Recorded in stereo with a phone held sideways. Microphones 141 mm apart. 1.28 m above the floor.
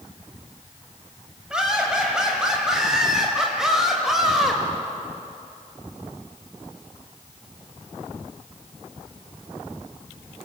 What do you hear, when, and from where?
1.5 s laughter: 5° right (ahead or behind), 8 m; by 4.6 s centre (ahead or behind), 6 m